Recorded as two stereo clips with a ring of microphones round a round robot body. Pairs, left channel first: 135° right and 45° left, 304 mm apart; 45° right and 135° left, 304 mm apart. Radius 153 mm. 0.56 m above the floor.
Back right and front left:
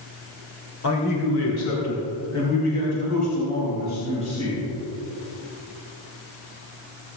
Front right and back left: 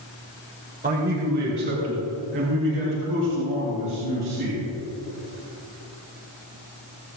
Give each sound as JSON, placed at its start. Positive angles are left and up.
{"t": 0.8, "sound": "a man speaking", "azimuth_deg": -165, "distance_m": 2.0}